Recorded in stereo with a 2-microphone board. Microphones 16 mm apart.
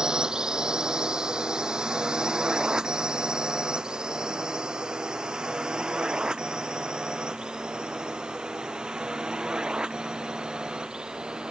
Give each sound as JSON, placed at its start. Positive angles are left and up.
{"t": 0.0, "sound": "a drone", "side_deg": -45}